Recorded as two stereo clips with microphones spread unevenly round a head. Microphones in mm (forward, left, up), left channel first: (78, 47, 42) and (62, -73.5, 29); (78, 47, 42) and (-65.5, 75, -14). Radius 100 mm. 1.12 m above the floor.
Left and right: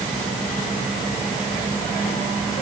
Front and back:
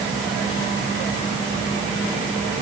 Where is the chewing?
No chewing in this recording.